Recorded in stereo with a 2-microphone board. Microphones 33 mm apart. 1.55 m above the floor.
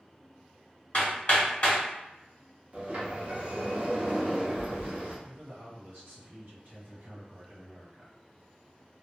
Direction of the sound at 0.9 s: 40° left (ahead or behind).